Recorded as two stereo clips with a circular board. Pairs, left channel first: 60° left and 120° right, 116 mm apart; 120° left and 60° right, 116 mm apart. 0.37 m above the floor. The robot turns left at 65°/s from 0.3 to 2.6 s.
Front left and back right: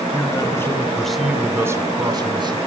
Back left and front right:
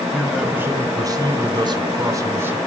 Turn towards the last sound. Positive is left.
turn(degrees=-130)